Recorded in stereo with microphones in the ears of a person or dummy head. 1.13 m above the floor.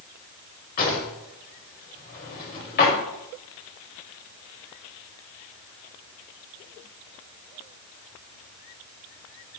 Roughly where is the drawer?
Left.